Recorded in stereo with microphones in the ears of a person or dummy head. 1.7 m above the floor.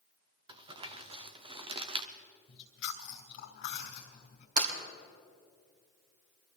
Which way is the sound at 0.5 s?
25° right (ahead or behind).